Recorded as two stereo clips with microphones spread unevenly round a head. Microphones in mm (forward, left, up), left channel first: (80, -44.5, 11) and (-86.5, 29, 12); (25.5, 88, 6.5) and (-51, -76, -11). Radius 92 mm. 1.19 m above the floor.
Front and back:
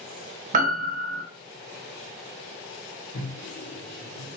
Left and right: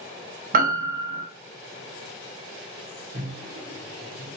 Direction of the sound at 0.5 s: 160° right.